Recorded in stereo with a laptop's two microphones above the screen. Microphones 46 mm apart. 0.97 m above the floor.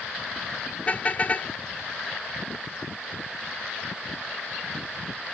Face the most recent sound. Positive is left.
turn(degrees=35)  # may be behind; listen again after turning